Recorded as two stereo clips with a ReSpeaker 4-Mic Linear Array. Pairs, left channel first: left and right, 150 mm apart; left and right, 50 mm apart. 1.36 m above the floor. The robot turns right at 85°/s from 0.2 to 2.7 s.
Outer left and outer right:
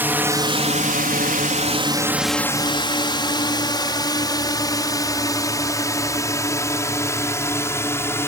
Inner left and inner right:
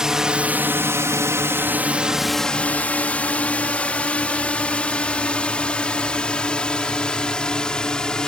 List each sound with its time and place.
0.0 s a drone: 15° right (ahead or behind); by 8.3 s 15° left (ahead or behind)